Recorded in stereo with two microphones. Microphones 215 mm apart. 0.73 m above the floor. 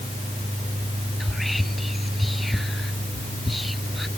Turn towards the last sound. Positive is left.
turn(degrees=0)  # may be behind; listen again after turning